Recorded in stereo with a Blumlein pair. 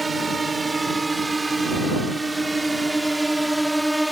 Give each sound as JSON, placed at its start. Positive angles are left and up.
{"t": 0.0, "sound": "a drone", "azimuth_deg": -10}